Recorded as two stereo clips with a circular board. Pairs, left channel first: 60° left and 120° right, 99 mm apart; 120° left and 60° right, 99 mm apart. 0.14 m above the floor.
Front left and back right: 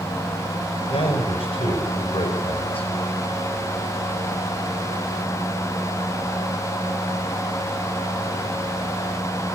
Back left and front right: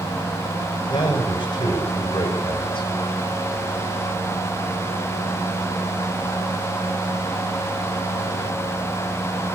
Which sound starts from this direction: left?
A man speaking, at 0.9 s.